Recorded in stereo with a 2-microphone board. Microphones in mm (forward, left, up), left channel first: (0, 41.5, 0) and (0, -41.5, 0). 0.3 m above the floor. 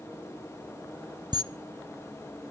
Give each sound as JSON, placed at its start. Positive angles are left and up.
{"t": 1.3, "sound": "a camera shutter", "side_deg": -60, "distance_m": 0.5}